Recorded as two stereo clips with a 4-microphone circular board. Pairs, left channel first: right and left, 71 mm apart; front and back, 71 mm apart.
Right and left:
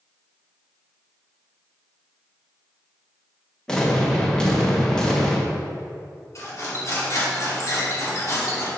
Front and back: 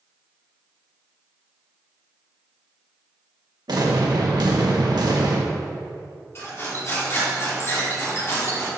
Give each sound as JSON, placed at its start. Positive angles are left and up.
{"t": 3.7, "sound": "an explosion", "azimuth_deg": -170, "distance_m": 1.4}
{"t": 6.3, "sound": "cutlery clinking", "azimuth_deg": -50, "distance_m": 2.5}